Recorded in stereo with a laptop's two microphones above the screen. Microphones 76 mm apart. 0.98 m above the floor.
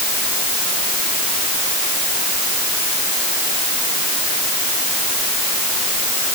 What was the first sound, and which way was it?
Only background noise.